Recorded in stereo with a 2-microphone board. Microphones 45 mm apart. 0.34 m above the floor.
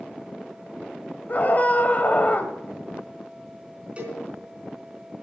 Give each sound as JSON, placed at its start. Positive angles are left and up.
{"t": 1.3, "sound": "a scream", "side_deg": 40, "distance_m": 1.6}
{"t": 4.0, "sound": "a cowbell", "side_deg": -25, "distance_m": 4.0}